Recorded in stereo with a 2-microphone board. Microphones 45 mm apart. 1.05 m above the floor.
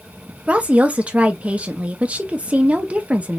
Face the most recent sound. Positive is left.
turn(degrees=-30)  # may be behind; listen again after turning